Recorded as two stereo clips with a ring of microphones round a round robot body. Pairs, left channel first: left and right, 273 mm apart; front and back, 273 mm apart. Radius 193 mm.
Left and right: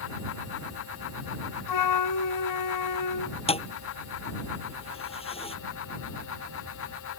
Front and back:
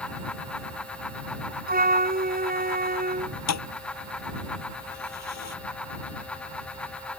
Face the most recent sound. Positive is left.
turn(degrees=20)